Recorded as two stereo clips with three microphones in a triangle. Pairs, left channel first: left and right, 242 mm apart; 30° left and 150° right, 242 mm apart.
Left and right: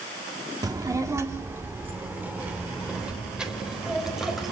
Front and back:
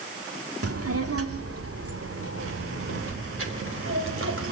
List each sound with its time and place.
0.6 s a child speaking: 165° right, 1.9 m; by 4.5 s straight behind, 4.5 m